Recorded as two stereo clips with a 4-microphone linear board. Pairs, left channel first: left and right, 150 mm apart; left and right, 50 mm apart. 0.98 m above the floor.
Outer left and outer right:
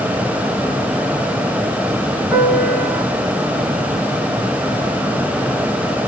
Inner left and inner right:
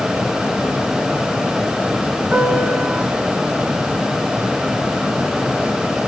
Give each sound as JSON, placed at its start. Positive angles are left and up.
{"t": 2.3, "sound": "a piano", "side_deg": 5, "distance_m": 3.0}